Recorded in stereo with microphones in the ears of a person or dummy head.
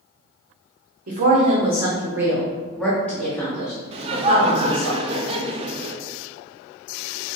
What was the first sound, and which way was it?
A woman speaking, 45° right (ahead or behind).